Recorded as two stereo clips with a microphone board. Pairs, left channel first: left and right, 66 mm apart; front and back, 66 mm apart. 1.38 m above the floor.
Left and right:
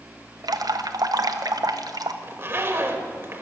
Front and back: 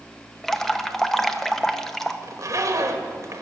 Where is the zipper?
145° right, 1.3 m.